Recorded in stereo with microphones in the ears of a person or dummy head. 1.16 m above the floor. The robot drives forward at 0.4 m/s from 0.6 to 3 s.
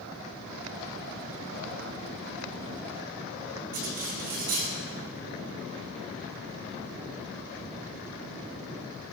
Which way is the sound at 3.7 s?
45° right (ahead or behind).